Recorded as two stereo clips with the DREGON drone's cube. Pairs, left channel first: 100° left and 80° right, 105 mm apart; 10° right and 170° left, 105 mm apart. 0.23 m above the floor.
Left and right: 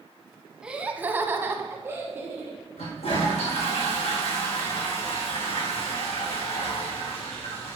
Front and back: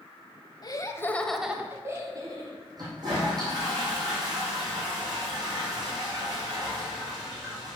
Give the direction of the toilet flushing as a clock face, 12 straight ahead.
8 o'clock.